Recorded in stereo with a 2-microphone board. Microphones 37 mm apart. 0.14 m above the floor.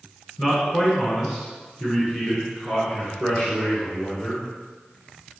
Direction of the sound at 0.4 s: 5° right (ahead or behind).